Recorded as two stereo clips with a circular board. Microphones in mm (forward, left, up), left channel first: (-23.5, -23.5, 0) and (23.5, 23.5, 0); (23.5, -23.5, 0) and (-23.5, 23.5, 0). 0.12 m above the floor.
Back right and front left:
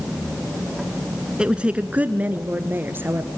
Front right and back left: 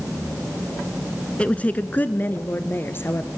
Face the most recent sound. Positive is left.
turn(degrees=0)